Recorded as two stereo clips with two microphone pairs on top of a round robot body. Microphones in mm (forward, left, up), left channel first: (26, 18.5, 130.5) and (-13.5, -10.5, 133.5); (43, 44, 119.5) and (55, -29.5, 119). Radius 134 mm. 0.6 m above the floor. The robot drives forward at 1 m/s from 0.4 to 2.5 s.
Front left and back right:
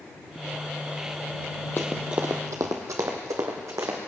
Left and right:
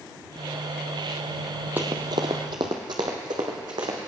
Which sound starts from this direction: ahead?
Running footsteps, at 1.8 s.